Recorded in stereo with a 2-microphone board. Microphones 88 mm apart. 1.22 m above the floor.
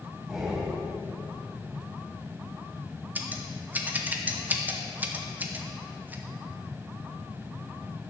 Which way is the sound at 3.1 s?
20° right (ahead or behind).